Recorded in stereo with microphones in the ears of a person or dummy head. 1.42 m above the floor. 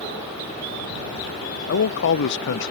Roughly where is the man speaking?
Left.